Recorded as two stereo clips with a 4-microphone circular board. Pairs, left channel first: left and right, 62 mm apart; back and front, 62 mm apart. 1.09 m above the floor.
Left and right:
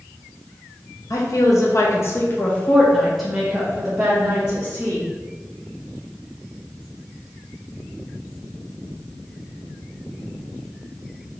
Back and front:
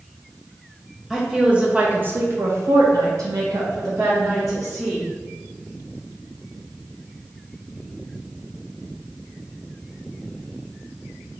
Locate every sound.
1.1 s a woman speaking: 80° left, 1.0 m; by 5.0 s 35° right, 1.5 m